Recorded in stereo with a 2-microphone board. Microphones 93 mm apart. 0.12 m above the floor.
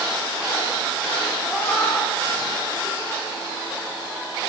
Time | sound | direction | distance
1.5 | a cat meowing | 25° left (ahead or behind) | 7 m